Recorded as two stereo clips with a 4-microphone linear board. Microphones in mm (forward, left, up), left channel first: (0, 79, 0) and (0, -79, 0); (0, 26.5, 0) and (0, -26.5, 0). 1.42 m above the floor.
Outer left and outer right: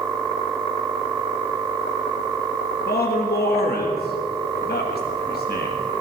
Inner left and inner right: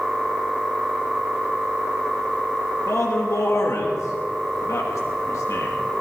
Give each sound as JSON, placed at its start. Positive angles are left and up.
{"t": 2.9, "sound": "a man speaking", "side_deg": 80, "distance_m": 1.6}